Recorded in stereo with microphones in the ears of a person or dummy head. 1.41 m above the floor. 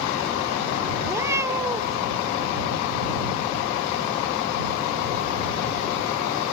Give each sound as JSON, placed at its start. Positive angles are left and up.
{"t": 1.0, "sound": "a cat meowing", "side_deg": -10}